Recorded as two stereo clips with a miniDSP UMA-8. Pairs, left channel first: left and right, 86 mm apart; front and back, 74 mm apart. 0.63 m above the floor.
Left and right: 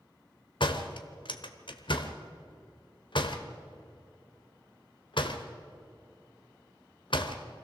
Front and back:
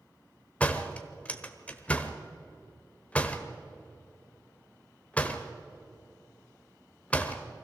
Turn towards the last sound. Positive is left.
turn(degrees=70)